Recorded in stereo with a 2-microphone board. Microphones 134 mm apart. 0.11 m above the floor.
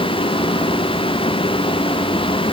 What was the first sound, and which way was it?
Only background noise.